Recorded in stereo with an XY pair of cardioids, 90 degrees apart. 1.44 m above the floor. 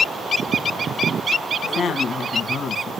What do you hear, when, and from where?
1.6 s a woman speaking: 60° left, 1.8 m